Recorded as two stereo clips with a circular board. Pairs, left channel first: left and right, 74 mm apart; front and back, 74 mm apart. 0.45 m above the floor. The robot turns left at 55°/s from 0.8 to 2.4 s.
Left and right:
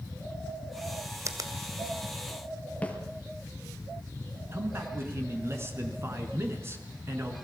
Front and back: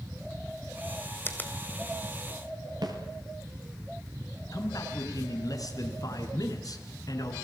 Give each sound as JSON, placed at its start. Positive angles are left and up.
{"t": 1.2, "sound": "a finger snap", "azimuth_deg": -55, "distance_m": 2.0}
{"t": 2.8, "sound": "a snare drum", "azimuth_deg": 160, "distance_m": 4.0}
{"t": 4.5, "sound": "a man speaking", "azimuth_deg": -35, "distance_m": 4.5}